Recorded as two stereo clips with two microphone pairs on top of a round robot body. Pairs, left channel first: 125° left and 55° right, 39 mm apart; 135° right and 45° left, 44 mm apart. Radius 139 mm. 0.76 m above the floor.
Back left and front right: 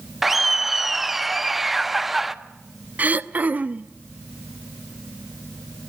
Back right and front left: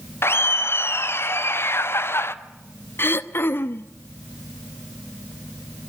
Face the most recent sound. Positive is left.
turn(degrees=-105)